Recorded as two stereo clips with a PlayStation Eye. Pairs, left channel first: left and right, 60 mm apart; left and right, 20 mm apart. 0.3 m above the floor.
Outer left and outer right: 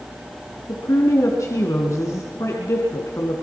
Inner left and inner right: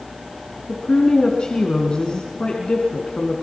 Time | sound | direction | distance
0.7 | a woman speaking | 55° left (ahead or behind) | 3 m